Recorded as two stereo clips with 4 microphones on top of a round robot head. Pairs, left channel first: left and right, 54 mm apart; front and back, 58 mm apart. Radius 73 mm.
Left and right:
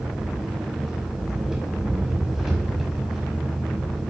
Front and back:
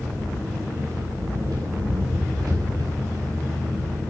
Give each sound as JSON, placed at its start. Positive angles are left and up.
{"t": 0.0, "sound": "an engine running", "azimuth_deg": -175, "distance_m": 5.0}